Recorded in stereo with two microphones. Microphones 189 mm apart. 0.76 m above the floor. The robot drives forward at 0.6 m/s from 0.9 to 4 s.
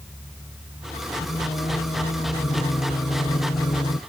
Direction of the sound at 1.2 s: 30° left (ahead or behind).